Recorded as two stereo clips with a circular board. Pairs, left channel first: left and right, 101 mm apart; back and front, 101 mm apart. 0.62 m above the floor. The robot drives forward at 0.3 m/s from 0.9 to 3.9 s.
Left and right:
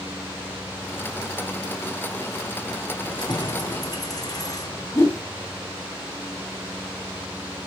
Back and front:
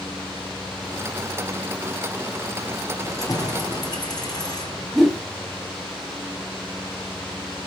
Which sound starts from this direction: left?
A whoosh, at 5.0 s.